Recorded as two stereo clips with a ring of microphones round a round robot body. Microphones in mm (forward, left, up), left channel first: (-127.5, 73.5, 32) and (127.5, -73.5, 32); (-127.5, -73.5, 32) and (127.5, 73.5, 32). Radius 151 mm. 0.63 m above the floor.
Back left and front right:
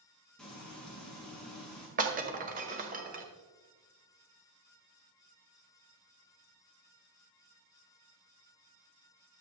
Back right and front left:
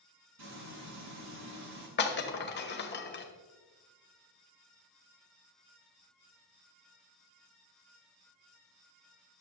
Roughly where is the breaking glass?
Right.